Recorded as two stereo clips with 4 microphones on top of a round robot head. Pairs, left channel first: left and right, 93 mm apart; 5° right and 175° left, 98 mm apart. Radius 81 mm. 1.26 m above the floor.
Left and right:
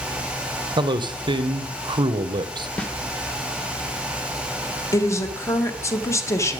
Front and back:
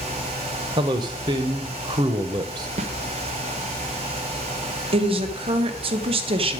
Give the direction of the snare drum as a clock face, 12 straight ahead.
6 o'clock.